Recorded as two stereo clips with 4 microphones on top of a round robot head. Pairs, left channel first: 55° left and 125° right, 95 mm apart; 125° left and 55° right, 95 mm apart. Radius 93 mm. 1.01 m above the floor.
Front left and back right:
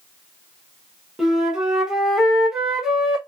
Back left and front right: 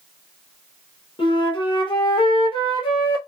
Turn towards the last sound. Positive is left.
turn(degrees=150)